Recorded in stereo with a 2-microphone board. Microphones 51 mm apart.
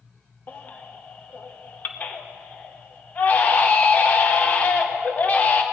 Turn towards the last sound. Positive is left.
turn(degrees=35)  # may be behind; listen again after turning